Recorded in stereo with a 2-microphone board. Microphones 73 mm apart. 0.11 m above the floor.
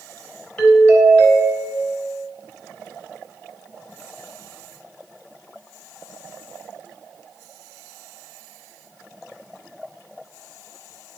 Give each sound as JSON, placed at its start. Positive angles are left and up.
{"t": 0.6, "sound": "a doorbell", "side_deg": 15, "distance_m": 1.8}